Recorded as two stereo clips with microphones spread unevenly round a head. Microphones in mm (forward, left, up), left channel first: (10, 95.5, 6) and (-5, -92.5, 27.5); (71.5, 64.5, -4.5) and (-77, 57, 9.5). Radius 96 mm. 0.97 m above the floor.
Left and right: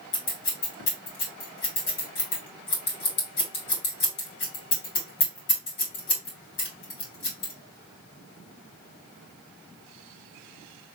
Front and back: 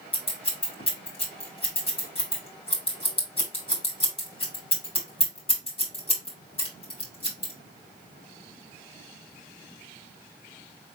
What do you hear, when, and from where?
0.1 s scissors: 55° left, 3 m